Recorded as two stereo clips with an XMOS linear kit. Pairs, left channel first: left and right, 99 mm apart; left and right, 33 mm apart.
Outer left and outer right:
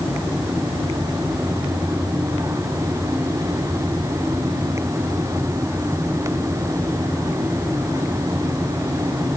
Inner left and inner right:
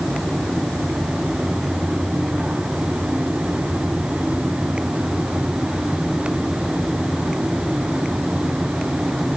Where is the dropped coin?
No dropped coin in this recording.